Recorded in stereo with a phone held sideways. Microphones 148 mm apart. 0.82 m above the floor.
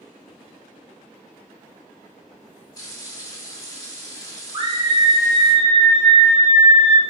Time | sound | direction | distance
2.8 | frying | 25° left (ahead or behind) | 1.0 m
4.5 | a scream | 35° right (ahead or behind) | 1.1 m